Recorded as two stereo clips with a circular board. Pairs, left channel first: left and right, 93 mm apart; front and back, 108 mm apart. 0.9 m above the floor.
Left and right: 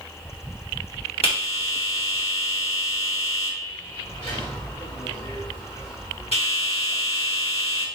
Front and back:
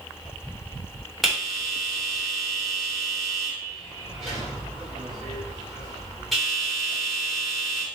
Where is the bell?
90° left, 3 m.